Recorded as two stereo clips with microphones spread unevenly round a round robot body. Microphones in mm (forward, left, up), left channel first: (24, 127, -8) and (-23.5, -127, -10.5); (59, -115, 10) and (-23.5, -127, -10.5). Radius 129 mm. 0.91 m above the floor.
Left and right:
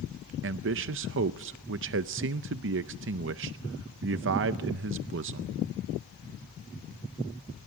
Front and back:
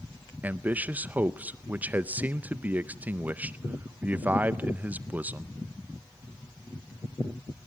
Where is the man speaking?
120° right, 0.5 m.